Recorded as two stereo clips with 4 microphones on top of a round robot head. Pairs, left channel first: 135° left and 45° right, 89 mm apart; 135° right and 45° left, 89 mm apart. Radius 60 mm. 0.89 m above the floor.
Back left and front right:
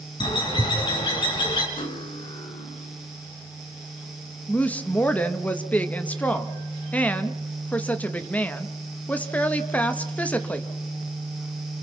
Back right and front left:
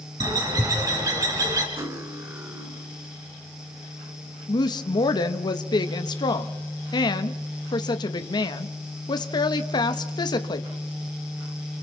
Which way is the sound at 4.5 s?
155° right.